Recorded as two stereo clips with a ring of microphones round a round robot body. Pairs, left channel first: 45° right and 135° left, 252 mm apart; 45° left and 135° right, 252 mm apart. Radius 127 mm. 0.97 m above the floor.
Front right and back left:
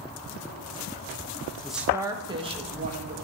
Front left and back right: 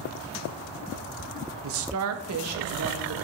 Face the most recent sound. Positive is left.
turn(degrees=-160)